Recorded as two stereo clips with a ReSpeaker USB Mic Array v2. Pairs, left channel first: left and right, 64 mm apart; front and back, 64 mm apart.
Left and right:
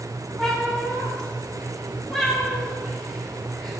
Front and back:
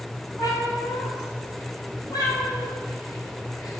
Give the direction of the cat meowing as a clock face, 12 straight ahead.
12 o'clock.